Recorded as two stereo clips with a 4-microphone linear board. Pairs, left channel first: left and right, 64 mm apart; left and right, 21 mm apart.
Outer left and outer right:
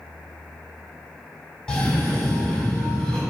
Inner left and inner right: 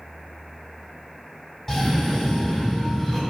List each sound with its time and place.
1.7 s a cough: 10° left (ahead or behind), 2.5 m